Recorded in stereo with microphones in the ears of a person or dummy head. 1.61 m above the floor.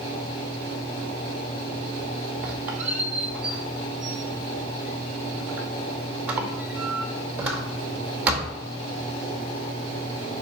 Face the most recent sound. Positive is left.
turn(degrees=-15)  # may be behind; listen again after turning